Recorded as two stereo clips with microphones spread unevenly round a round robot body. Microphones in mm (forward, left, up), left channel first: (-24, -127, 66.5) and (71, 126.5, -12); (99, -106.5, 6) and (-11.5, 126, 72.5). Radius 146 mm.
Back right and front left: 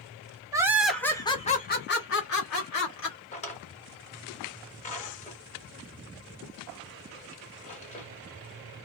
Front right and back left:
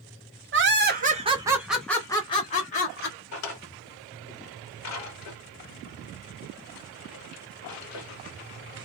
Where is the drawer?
45° right, 1.3 m.